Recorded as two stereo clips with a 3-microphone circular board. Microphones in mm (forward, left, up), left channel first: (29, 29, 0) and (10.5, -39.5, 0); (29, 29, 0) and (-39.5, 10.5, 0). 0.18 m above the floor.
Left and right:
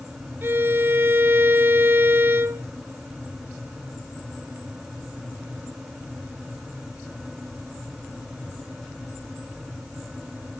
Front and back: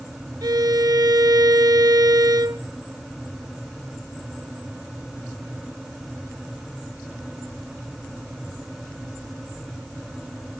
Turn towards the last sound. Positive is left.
turn(degrees=-160)